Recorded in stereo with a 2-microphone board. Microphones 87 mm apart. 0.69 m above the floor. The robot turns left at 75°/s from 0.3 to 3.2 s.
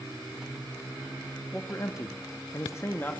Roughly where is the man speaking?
Behind left.